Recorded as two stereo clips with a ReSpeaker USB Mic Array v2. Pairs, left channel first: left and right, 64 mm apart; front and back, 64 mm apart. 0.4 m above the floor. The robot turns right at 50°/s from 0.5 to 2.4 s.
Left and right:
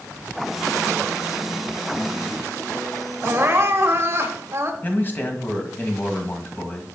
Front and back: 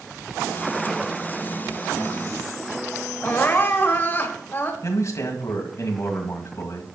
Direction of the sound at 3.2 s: 50° right.